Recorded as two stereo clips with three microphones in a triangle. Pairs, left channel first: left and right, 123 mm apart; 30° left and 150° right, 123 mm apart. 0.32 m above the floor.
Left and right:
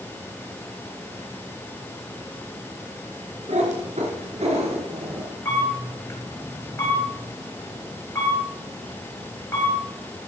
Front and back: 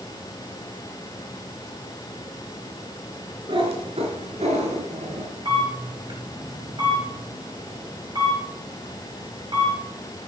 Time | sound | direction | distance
3.5 | a cat meowing | 105° right | 2.5 m
5.5 | a camera shutter | 160° left | 5.5 m